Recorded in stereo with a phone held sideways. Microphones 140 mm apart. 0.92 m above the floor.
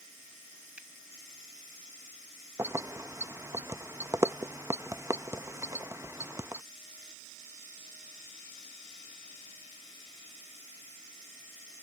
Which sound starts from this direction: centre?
A finger snap, at 0.8 s.